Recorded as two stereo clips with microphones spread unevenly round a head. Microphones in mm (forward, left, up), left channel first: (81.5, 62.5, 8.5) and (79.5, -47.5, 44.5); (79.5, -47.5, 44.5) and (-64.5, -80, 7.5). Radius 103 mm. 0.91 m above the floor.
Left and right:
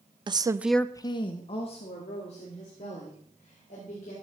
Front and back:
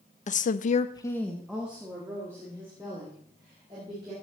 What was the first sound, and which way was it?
A woman speaking, 30° right.